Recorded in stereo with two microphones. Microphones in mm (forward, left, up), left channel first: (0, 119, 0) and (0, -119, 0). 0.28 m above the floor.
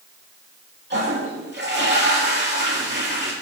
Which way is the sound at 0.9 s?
45° right (ahead or behind).